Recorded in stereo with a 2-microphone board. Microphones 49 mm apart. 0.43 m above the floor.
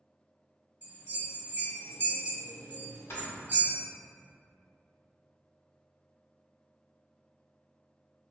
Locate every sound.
0.8 s a bell: 40° right (ahead or behind), 1.0 m
3.1 s snoring: 60° left (ahead or behind), 1.1 m